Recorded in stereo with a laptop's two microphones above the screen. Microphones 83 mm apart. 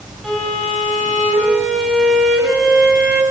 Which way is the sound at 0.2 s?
Centre (ahead or behind).